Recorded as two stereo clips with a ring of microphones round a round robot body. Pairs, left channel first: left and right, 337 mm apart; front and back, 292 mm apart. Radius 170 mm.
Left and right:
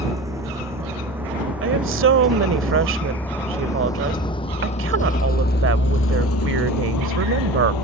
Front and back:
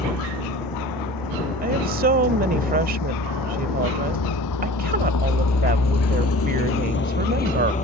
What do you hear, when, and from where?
0.0 s a vehicle: 10° right; by 7.8 s 65° left
1.6 s a woman speaking: 130° right